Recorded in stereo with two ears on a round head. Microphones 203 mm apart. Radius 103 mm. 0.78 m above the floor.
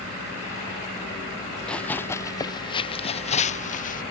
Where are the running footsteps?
5° left (ahead or behind); by 4.0 s 40° left (ahead or behind).